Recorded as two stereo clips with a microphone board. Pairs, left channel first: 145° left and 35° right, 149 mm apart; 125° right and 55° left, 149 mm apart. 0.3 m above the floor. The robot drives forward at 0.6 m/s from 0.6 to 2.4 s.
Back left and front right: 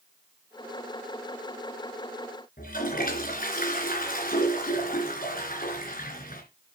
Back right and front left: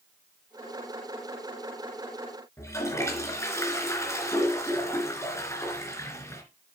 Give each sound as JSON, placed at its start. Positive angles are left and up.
{"t": 2.6, "sound": "a toilet flushing", "azimuth_deg": 165, "distance_m": 3.0}